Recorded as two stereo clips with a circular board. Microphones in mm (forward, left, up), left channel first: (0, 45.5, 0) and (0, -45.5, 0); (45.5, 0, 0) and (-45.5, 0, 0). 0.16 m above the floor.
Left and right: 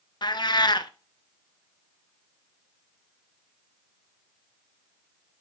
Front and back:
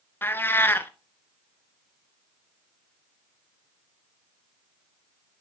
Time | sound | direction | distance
0.2 | a cat meowing | 65° left | 0.5 m